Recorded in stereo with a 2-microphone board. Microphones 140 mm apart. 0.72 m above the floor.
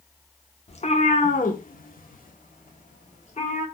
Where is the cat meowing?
45° left (ahead or behind), 0.8 m; by 3.6 s 55° left (ahead or behind), 1.7 m.